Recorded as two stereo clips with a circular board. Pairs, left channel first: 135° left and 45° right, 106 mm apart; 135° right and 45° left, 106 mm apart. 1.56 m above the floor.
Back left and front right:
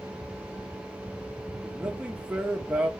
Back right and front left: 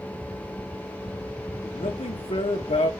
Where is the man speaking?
130° right, 1.5 m.